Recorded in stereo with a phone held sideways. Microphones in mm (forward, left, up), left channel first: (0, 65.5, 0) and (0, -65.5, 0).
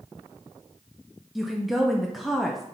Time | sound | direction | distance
1.4 | a woman speaking | centre (ahead or behind) | 0.8 m